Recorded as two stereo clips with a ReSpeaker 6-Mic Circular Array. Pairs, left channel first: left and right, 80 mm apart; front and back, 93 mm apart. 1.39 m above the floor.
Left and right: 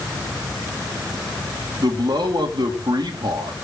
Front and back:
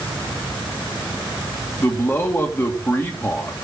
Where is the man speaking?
65° right, 3 m.